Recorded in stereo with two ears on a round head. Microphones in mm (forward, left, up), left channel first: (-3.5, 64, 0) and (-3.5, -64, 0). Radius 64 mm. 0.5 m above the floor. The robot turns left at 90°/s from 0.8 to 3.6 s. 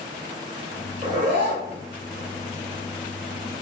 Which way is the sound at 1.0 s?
50° right.